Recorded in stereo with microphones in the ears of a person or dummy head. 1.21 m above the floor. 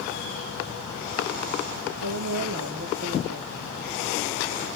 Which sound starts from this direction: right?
A woman speaking, at 2.0 s.